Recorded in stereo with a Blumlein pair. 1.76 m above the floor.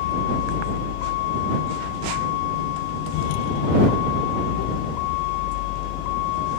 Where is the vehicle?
50° left; by 6.6 s 45° left.